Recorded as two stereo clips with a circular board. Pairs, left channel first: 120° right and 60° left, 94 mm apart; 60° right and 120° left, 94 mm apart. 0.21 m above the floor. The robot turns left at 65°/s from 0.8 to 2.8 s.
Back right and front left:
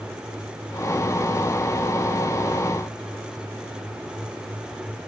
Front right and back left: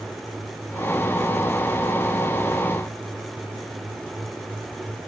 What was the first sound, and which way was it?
Only background noise.